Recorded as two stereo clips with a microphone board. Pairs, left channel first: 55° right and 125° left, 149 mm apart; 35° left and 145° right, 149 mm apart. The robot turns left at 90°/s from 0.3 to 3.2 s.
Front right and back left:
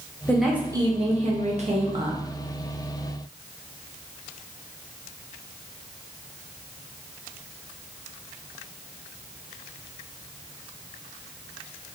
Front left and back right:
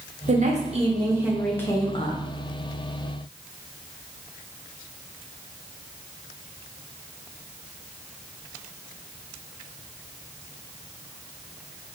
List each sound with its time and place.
0.3 s a woman speaking: 135° right, 0.6 m; by 2.2 s 55° left, 0.6 m